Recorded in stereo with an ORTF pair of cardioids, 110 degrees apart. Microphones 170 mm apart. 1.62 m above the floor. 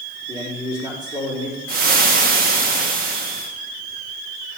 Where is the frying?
60° right, 1.4 m.